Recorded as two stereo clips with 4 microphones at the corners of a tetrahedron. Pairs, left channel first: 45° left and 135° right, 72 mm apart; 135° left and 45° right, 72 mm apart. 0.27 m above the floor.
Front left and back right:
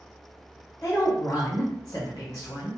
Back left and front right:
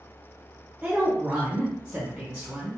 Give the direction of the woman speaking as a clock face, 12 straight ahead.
11 o'clock.